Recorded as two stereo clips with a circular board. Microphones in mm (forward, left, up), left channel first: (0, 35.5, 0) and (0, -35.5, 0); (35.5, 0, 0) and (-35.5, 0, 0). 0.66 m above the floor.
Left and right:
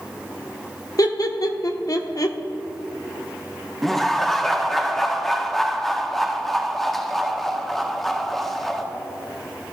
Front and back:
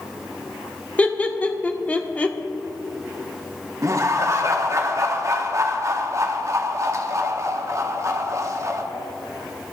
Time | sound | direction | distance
1.0 | laughter | 70° left | 1.2 m
3.8 | laughter | 175° left | 1.5 m